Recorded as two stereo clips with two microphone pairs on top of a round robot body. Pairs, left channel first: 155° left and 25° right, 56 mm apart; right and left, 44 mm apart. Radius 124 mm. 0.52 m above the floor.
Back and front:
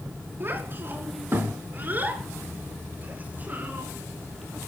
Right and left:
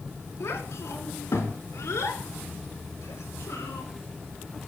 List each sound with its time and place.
0.4 s a child speaking: 75° right, 5.5 m; by 3.9 s 85° right, 9 m